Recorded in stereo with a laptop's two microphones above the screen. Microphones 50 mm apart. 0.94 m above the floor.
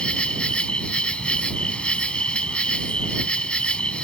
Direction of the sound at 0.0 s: 20° left (ahead or behind).